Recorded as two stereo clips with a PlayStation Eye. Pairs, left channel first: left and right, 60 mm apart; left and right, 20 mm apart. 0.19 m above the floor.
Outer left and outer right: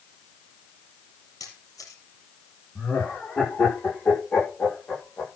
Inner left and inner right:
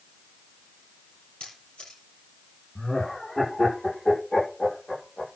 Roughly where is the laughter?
Left.